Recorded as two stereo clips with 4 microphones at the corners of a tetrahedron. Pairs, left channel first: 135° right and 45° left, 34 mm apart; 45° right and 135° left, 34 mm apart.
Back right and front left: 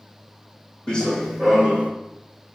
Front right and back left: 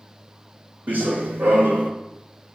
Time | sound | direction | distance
0.9 | running footsteps | 160° left | 0.6 m